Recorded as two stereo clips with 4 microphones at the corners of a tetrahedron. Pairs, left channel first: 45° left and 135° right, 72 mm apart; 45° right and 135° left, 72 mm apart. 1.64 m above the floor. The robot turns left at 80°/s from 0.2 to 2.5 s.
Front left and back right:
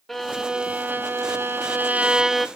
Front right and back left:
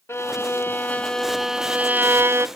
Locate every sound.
0.1 s a violin: 40° right, 1.1 m; by 2.5 s 140° left, 1.1 m